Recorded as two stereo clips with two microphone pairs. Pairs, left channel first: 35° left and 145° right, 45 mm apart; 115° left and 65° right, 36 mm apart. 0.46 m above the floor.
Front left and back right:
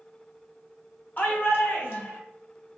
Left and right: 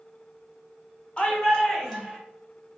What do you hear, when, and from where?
1.2 s a shout: 65° left, 1.1 m; by 2.2 s 25° left, 1.6 m